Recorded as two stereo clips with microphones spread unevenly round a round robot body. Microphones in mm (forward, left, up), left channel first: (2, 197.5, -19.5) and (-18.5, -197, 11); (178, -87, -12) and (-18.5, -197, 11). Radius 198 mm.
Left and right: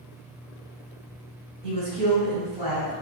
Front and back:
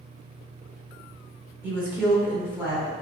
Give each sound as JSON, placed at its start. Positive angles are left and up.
{"t": 1.6, "sound": "a woman speaking", "azimuth_deg": -65, "distance_m": 1.5}